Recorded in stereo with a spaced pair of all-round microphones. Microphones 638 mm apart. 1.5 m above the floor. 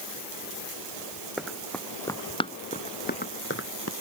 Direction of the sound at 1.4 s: Centre (ahead or behind).